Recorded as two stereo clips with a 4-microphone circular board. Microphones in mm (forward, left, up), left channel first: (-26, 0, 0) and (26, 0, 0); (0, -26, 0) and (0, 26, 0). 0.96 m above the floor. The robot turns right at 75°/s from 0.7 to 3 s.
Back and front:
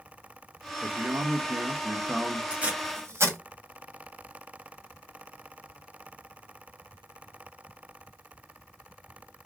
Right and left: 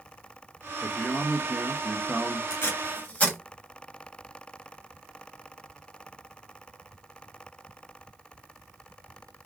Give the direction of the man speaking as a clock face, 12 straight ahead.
1 o'clock.